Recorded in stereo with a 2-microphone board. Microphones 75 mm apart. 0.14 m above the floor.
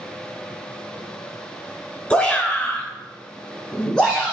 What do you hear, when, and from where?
2.1 s a shout: 15° left (ahead or behind), 1.8 m; by 4.3 s 5° left (ahead or behind), 1.7 m